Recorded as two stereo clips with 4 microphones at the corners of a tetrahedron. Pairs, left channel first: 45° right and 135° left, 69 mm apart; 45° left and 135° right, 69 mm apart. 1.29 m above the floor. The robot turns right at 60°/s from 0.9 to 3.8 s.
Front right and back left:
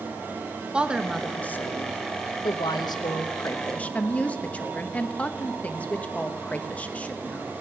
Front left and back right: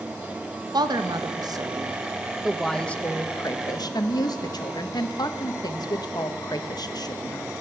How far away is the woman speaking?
About 1.1 m.